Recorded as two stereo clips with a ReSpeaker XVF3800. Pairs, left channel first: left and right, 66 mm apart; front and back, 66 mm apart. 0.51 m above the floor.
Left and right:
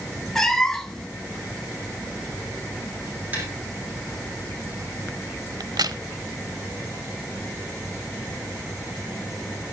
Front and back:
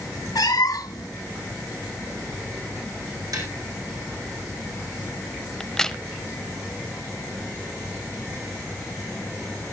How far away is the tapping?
About 5 m.